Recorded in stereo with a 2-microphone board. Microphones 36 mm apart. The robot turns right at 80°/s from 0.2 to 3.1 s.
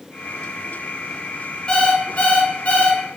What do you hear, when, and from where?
1.7 s an alarm clock: 35° left, 0.5 m; by 3.0 s 140° left, 0.5 m